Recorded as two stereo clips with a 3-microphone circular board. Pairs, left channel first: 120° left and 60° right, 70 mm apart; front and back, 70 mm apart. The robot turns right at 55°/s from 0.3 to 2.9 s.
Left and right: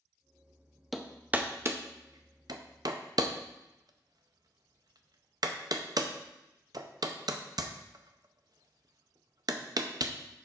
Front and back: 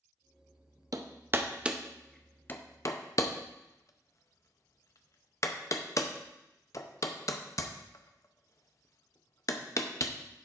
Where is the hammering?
150° right, 0.6 m; by 10.1 s 40° right, 0.6 m.